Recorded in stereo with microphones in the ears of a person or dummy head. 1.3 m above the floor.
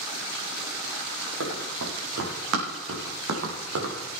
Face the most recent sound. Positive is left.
turn(degrees=-65)  # may be behind; listen again after turning